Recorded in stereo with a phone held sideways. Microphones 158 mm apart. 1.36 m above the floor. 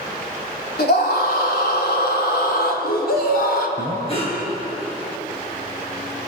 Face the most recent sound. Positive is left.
turn(degrees=35)  # may be behind; listen again after turning